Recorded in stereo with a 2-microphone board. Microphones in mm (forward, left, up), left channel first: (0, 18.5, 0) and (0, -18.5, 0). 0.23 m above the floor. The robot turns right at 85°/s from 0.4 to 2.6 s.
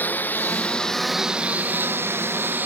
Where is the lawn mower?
50° left (ahead or behind); by 2.7 s 55° right (ahead or behind).